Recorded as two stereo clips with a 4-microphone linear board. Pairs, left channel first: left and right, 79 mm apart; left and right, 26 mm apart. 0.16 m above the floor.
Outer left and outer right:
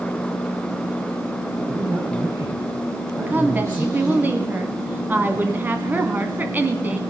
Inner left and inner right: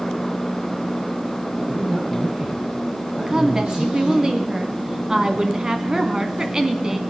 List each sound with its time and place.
1.6 s a man speaking: 40° right (ahead or behind), 5.5 m
3.3 s a woman speaking: 25° right (ahead or behind), 1.4 m